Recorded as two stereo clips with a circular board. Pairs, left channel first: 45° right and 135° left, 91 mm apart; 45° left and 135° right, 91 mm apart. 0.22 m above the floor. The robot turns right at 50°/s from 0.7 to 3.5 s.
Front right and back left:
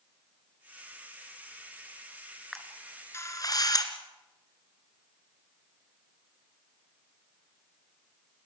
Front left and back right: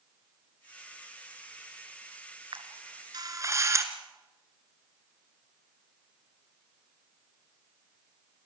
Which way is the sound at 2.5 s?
135° right.